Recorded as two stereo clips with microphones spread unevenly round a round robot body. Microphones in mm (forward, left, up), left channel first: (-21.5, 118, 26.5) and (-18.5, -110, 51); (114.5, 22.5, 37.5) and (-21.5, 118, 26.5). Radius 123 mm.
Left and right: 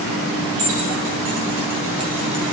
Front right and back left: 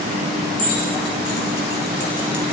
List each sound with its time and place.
0.6 s keys jangling: 60° right, 3.5 m; by 2.5 s 10° right, 2 m